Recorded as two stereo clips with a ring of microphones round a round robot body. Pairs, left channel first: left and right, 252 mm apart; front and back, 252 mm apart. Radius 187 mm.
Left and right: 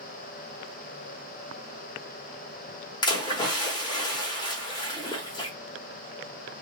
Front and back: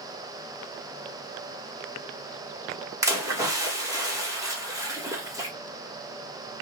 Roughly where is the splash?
Behind left.